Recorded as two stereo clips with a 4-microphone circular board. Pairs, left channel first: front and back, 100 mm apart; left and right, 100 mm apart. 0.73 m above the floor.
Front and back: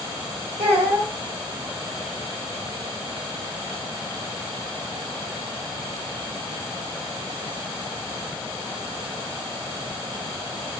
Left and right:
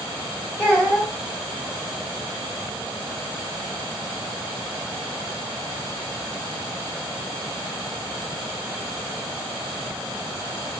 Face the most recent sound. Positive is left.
turn(degrees=-165)